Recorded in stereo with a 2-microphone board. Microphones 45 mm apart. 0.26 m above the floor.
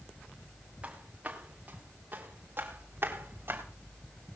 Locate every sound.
0.8 s footsteps: 30° right (ahead or behind), 3.5 m; by 3.6 s 55° right (ahead or behind), 4 m